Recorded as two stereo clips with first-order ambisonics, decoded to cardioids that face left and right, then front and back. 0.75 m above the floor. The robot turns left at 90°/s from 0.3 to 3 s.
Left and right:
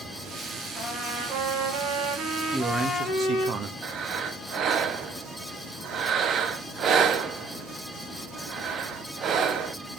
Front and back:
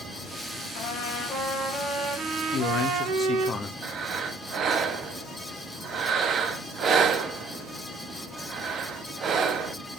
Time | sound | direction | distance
0.8 | a trumpet | 5° left | 2.5 m
2.5 | a man speaking | 20° right | 0.9 m
3.8 | breathing | 130° right | 0.9 m